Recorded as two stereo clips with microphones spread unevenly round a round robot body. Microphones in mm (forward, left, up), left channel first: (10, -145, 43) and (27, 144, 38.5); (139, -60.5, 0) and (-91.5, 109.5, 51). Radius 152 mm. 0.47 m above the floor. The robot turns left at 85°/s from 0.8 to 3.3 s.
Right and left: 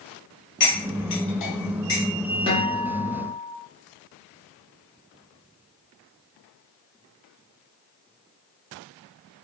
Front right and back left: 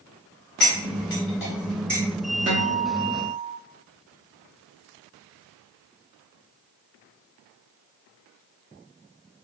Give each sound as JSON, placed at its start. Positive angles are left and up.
{"t": 0.6, "sound": "cutlery clinking", "azimuth_deg": -40, "distance_m": 1.6}
{"t": 2.5, "sound": "a guitar", "azimuth_deg": -155, "distance_m": 1.1}